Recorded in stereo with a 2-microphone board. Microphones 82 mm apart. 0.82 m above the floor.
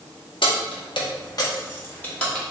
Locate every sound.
0.4 s keys jangling: 75° left (ahead or behind), 0.9 m; by 2.5 s 10° left (ahead or behind), 1.2 m